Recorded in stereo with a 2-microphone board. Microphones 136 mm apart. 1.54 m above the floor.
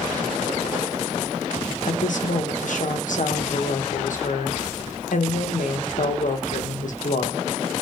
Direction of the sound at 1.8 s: 70° left (ahead or behind).